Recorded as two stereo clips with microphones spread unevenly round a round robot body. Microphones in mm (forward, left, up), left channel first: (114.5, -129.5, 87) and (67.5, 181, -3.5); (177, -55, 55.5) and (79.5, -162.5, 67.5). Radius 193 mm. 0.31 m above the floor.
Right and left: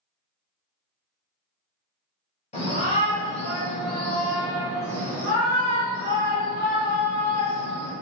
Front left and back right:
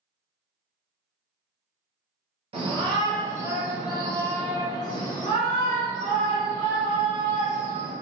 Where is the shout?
165° right, 1.0 m; by 7.9 s 20° left, 2 m.